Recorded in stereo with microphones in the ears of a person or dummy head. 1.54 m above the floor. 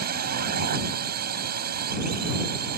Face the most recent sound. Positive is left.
turn(degrees=-55)  # may be behind; listen again after turning